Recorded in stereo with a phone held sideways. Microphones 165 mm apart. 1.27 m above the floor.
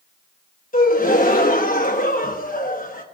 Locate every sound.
0.7 s a gasp: 55° left (ahead or behind), 0.9 m